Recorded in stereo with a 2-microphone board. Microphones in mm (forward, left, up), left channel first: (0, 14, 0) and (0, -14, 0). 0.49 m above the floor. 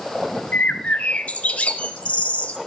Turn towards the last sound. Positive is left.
turn(degrees=65)  # may be behind; listen again after turning